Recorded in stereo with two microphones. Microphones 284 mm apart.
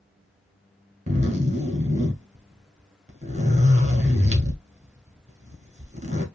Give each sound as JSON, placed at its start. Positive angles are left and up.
{"t": 1.1, "sound": "a zipper", "side_deg": -25, "distance_m": 1.3}